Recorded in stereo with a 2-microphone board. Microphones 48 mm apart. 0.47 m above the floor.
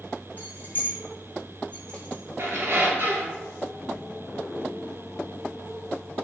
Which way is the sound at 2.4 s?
55° right (ahead or behind).